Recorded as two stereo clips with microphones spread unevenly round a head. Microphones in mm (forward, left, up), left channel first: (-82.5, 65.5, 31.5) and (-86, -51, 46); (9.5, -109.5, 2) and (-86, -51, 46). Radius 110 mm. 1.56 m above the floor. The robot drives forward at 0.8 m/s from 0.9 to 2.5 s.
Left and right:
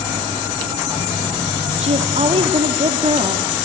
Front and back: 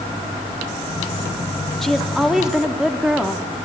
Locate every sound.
1.8 s a woman speaking: 120° right, 3 m; by 3.5 s 130° right, 3.5 m